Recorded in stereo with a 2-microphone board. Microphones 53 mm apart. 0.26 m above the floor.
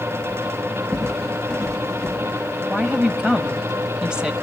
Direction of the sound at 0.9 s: 5° left (ahead or behind).